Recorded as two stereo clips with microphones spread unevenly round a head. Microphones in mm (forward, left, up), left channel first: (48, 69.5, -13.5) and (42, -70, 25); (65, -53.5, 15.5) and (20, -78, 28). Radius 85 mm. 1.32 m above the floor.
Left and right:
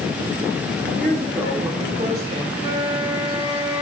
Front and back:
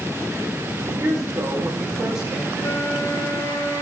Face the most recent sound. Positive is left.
turn(degrees=30)